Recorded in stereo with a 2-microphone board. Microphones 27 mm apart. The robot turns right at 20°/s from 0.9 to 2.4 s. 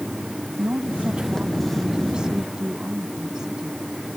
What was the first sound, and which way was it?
A woman speaking, 55° right.